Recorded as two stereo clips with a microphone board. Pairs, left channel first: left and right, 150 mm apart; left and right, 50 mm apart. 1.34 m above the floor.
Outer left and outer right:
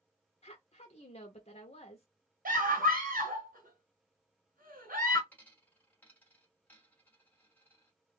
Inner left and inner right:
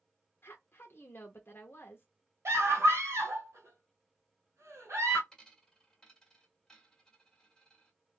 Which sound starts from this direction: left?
A woman speaking, at 0.4 s.